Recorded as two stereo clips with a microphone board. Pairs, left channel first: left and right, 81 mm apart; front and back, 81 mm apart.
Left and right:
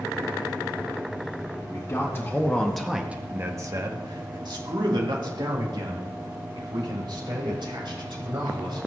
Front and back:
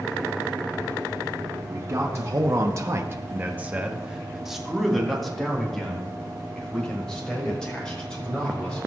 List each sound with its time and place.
1.7 s a man speaking: 130° left, 1.6 m; by 8.9 s 80° right, 5.5 m